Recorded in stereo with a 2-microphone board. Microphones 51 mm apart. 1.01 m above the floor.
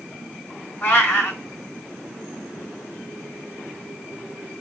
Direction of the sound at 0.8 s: 40° left (ahead or behind).